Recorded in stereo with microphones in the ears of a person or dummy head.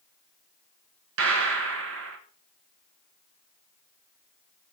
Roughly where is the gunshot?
Right.